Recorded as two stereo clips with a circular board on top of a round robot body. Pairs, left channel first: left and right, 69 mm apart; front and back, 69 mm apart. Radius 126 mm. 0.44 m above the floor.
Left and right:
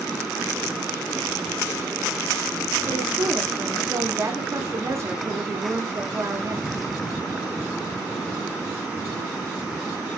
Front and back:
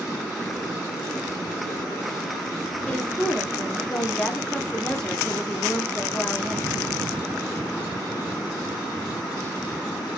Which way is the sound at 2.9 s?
75° right.